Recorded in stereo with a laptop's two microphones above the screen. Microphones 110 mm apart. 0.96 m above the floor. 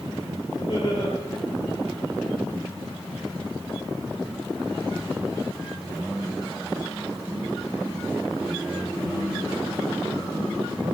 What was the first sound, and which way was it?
Laughter, 60° left (ahead or behind).